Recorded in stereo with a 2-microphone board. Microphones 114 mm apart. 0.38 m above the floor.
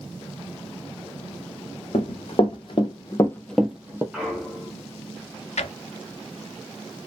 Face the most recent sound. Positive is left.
turn(degrees=75)  # may be behind; listen again after turning